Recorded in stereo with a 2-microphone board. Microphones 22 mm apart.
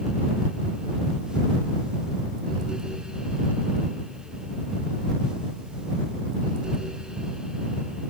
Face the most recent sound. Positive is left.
No sound to turn to.